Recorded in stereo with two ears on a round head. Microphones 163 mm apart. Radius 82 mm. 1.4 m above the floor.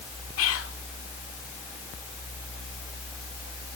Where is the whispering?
85° left, 3.5 m.